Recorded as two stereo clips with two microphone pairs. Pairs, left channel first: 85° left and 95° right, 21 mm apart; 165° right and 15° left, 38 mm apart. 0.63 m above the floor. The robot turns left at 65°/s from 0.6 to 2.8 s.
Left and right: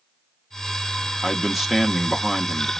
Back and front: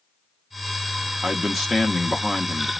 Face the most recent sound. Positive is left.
turn(degrees=-150)